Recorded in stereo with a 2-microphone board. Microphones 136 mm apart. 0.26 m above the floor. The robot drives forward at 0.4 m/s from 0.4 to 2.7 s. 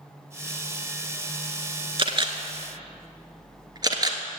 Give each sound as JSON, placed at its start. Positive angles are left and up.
{"t": 2.0, "sound": "a camera shutter", "side_deg": -40, "distance_m": 0.9}